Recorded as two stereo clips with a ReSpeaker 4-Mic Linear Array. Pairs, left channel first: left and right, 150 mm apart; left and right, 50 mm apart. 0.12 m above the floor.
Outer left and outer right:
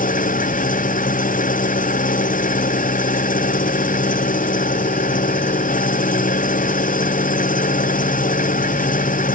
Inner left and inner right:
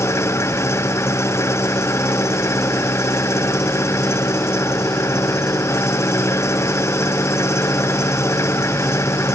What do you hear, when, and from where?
0.0 s an engine running: 60° left (ahead or behind)